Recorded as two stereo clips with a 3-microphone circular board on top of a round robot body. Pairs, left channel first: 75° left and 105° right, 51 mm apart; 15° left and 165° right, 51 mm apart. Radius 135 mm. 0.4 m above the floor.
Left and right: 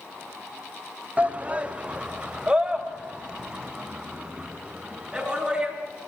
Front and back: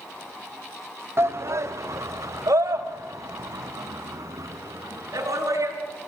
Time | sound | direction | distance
1.2 | a shout | 160° right | 1.4 m